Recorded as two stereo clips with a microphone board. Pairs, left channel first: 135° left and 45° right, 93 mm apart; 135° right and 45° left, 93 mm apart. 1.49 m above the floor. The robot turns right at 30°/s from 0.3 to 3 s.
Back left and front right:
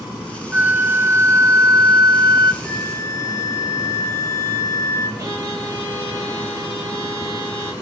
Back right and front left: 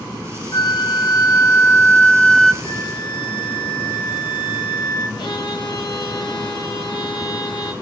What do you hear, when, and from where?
0.5 s a flute: 115° right, 0.5 m; by 2.5 s 55° right, 0.5 m
2.6 s a flute: 175° right, 5 m; by 5.1 s 165° right, 5 m
5.2 s a violin: 100° right, 4.5 m